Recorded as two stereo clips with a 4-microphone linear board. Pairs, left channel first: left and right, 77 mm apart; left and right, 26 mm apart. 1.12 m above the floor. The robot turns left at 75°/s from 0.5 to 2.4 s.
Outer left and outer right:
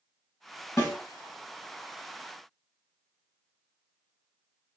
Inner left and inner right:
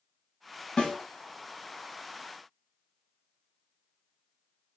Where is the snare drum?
35° left (ahead or behind), 1.4 m; by 1.0 s 25° left (ahead or behind), 1.4 m.